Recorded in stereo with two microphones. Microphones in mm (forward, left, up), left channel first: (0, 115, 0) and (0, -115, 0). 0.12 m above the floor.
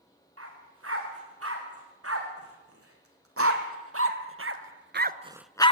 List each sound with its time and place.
0.4 s a dog barking: 80° right, 6.5 m; by 5.7 s 25° left (ahead or behind), 0.7 m